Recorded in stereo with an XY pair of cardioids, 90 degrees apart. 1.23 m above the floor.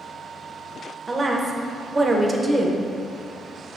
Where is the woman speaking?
30° right, 0.7 m.